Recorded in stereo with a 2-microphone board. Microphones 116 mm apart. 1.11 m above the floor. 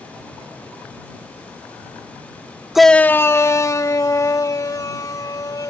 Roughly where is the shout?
Centre.